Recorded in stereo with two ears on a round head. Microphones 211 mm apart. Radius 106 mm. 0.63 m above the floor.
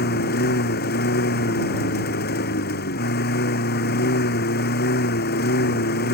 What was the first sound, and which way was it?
A lawn mower, 45° left (ahead or behind).